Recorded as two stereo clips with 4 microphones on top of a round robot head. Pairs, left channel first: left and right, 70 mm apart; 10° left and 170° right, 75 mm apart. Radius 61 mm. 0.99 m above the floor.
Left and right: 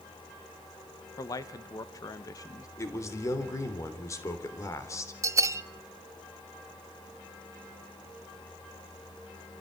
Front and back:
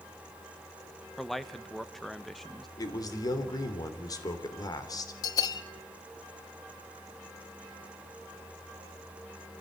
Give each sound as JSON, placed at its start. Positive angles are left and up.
{"t": 1.2, "sound": "a man speaking", "azimuth_deg": 95, "distance_m": 1.2}
{"t": 2.8, "sound": "a man speaking", "azimuth_deg": 45, "distance_m": 3.0}
{"t": 5.2, "sound": "a bell", "azimuth_deg": -45, "distance_m": 0.7}